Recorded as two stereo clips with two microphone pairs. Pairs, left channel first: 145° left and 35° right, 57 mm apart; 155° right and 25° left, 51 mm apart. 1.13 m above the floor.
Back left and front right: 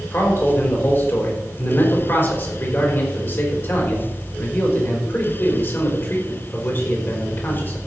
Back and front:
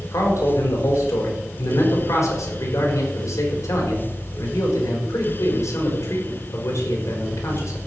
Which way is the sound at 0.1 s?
170° right.